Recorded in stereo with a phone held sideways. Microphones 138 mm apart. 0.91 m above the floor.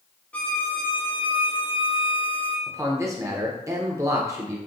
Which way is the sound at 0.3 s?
10° left (ahead or behind).